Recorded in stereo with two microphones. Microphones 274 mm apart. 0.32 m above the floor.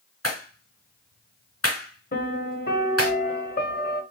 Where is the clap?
70° left (ahead or behind), 3 m.